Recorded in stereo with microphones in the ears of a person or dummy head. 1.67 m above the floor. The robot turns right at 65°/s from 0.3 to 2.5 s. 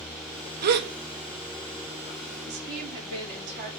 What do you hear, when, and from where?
0.6 s a gasp: 50° right (ahead or behind), 0.8 m; by 0.9 s 65° right (ahead or behind), 0.8 m
2.5 s a woman speaking: 55° right (ahead or behind), 4.5 m